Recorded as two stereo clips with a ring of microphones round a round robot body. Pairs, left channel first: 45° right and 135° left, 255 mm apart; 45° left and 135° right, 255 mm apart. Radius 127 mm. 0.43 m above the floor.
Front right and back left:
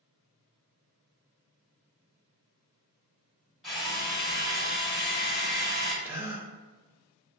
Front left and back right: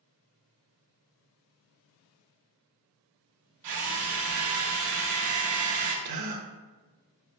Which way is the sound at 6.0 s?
145° right.